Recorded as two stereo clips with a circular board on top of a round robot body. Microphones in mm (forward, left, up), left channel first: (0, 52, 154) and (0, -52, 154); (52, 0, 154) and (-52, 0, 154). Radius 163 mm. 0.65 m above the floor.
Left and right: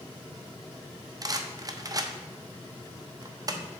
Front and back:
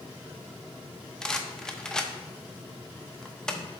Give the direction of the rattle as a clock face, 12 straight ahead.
3 o'clock.